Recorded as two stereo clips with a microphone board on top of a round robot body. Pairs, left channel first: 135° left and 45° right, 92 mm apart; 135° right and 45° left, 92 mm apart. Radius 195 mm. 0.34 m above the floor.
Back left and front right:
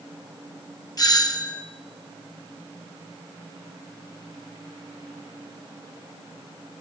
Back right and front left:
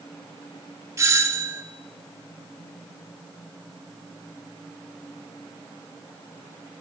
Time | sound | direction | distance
1.0 | a doorbell | 100° left | 2.5 m